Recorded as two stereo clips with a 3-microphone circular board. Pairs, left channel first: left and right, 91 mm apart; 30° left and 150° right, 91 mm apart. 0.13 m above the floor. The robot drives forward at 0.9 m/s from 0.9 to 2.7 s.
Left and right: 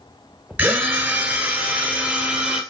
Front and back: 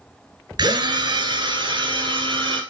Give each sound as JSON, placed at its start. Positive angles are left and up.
{"t": 0.6, "sound": "a drill", "azimuth_deg": -160, "distance_m": 1.7}